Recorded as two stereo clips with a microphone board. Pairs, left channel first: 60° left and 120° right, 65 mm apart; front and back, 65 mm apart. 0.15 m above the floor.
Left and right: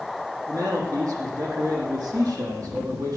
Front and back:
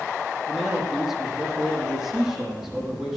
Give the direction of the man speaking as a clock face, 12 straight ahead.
3 o'clock.